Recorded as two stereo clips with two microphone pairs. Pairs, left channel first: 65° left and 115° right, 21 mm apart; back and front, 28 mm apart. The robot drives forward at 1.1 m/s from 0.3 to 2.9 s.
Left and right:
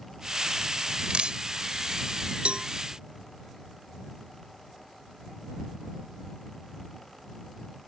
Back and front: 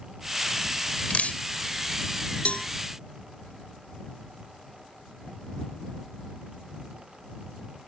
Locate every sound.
1.1 s dripping: 145° right; by 1.4 s 150° right
2.5 s a cowbell: 140° right